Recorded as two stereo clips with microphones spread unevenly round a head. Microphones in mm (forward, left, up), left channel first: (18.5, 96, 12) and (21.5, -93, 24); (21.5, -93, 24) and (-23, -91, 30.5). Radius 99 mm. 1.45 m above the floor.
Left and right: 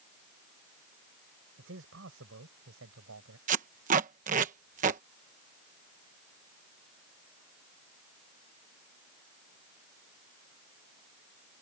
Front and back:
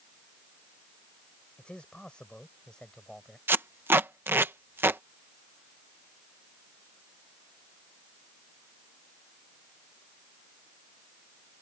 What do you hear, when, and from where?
1.6 s a man speaking: 70° right; by 3.4 s 80° right
3.5 s tape being pulled: 145° right